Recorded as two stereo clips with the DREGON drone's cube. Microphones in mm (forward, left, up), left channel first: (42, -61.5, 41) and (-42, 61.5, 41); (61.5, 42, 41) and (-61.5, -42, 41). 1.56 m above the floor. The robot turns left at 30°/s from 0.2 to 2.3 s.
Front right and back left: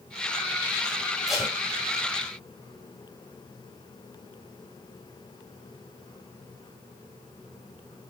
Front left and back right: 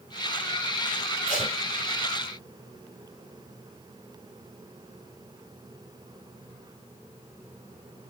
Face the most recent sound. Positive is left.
turn(degrees=5)